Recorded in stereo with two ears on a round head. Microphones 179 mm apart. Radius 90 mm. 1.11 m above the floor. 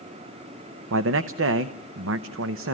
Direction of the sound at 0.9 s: 70° right (ahead or behind).